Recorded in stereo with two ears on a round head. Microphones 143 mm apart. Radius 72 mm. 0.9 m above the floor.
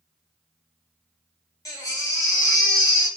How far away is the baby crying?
About 1.1 m.